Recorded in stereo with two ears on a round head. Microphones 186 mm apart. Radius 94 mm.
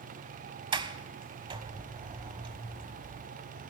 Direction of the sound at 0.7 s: 25° right (ahead or behind).